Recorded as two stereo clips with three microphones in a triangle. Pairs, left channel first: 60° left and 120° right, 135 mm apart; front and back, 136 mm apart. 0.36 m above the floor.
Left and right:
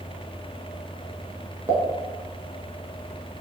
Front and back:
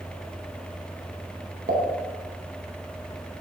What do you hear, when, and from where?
1.7 s a pop: 170° left, 0.5 m